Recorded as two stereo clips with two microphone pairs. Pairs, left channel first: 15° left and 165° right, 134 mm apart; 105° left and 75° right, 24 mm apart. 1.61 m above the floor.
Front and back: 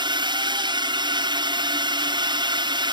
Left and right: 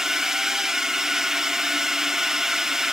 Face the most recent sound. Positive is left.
turn(degrees=-135)